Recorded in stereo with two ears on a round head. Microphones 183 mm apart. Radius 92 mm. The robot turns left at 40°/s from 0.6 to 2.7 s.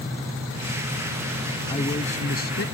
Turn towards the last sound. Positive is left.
turn(degrees=120)